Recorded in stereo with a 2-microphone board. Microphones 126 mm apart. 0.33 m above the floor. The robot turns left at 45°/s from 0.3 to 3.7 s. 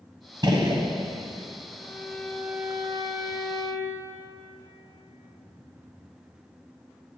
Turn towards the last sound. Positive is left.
turn(degrees=-55)